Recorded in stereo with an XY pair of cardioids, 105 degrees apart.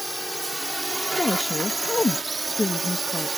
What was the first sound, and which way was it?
A drone, 5° right.